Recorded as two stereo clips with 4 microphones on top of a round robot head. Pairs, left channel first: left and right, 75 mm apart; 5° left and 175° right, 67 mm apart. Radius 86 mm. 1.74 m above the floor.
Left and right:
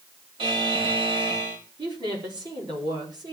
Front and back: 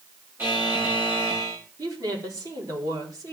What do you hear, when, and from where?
0.4 s a buzzer: 100° right, 4 m
1.8 s a woman speaking: 125° right, 4.5 m